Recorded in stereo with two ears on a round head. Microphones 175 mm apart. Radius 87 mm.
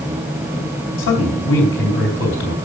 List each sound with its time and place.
1.0 s a man speaking: 70° left (ahead or behind), 4 m